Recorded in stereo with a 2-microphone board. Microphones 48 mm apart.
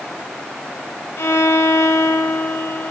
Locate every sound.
1.2 s a violin: 75° left (ahead or behind), 1.3 m